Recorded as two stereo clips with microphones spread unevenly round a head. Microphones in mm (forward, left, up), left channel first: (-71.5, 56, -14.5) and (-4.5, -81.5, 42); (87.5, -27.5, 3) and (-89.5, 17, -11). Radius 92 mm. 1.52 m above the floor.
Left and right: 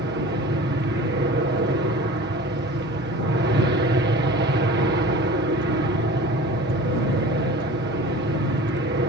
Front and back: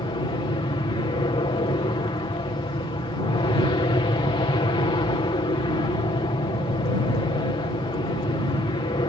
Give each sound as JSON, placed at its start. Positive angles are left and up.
{"t": 0.0, "sound": "an aircraft", "azimuth_deg": -75}